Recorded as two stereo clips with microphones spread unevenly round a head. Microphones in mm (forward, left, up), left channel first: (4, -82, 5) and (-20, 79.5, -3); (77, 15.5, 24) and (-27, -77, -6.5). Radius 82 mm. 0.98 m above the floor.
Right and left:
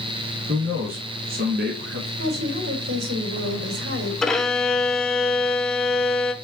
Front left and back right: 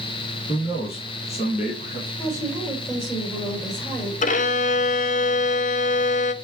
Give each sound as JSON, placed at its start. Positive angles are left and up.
{"t": 0.5, "sound": "a man speaking", "azimuth_deg": 100, "distance_m": 1.5}
{"t": 2.2, "sound": "a woman speaking", "azimuth_deg": 120, "distance_m": 3.5}
{"t": 4.2, "sound": "a violin", "azimuth_deg": 5, "distance_m": 1.0}